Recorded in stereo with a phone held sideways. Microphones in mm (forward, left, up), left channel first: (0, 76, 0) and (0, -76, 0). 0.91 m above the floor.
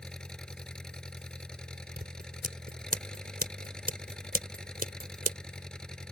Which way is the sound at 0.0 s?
5° left (ahead or behind).